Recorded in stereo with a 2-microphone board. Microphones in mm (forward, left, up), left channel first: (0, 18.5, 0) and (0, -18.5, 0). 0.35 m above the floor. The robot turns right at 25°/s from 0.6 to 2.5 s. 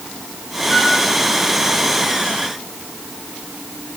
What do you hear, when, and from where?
0.7 s a flute: 10° left (ahead or behind), 2 m; by 1.0 s 5° left (ahead or behind), 2 m